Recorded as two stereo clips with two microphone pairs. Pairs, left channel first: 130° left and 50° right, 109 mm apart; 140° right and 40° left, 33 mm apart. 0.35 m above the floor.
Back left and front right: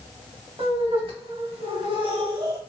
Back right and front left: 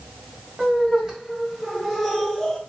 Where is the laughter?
35° right, 1.8 m; by 2.6 s 70° right, 1.2 m.